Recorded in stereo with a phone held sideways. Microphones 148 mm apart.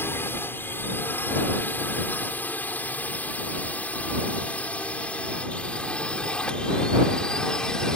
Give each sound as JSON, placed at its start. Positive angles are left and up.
{"t": 0.0, "sound": "a drone", "side_deg": 15}